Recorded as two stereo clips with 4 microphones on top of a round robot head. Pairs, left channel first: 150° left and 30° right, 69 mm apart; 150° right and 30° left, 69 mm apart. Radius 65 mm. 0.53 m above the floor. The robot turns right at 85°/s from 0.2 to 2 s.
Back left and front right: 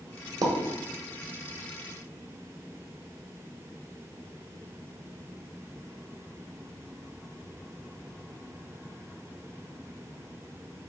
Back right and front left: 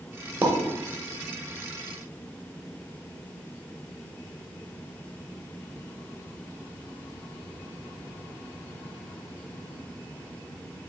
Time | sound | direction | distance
0.4 | a pop | 30° right | 0.9 m